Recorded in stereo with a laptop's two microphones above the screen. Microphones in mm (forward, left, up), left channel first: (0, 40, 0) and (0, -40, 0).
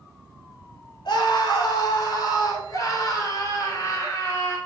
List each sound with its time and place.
1.1 s a scream: 70° left (ahead or behind), 3 m; by 4.6 s 40° left (ahead or behind), 4 m